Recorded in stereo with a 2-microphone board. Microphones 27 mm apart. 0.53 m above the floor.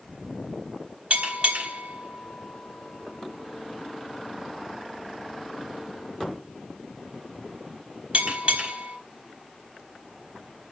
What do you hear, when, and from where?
1.1 s a bell: 65° right (ahead or behind), 3.5 m